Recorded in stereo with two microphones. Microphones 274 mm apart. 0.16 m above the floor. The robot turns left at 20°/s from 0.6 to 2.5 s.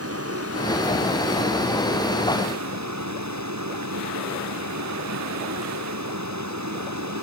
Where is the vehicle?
60° right; by 7.2 s 95° right.